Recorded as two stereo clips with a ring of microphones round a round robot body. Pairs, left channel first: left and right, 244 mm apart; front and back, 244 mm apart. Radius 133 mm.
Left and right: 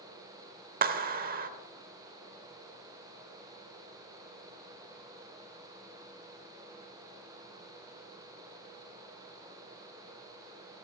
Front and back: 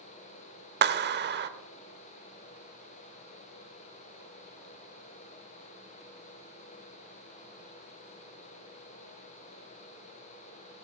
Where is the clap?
140° right, 0.9 m.